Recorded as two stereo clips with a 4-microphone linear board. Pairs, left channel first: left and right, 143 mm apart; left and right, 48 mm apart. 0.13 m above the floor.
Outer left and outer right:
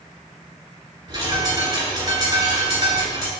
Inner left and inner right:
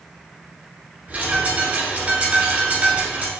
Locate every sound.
1.1 s a bird: 25° right (ahead or behind), 1.8 m